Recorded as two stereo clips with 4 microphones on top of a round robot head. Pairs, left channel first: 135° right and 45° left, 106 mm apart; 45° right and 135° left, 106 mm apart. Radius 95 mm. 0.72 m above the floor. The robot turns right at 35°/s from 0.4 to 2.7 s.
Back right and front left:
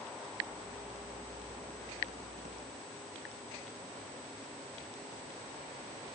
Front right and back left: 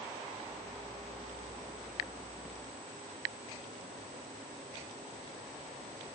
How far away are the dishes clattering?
I don't hear dishes clattering.